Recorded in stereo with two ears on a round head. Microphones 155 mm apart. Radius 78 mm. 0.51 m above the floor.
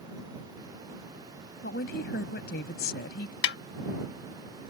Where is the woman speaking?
65° left (ahead or behind).